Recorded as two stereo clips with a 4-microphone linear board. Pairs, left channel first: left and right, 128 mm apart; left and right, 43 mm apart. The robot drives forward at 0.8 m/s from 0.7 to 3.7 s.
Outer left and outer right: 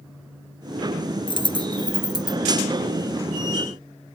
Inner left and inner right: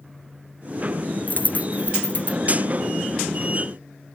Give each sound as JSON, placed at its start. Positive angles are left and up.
{"t": 1.3, "sound": "a dropped coin", "side_deg": 40}